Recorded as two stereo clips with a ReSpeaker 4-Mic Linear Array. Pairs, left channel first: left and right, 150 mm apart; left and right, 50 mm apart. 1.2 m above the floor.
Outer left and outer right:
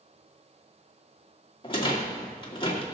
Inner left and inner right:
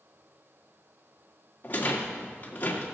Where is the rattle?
35° left (ahead or behind), 2 m.